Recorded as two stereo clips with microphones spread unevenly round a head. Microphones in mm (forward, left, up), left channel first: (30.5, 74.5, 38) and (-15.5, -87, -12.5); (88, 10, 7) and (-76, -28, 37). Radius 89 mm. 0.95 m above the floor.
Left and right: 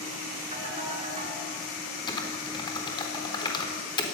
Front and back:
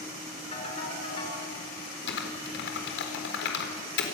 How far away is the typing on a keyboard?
About 4 m.